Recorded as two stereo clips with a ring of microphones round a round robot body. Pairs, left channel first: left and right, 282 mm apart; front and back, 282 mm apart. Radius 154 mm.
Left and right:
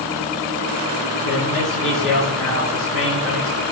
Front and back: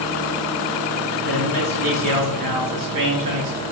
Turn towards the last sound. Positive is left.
turn(degrees=180)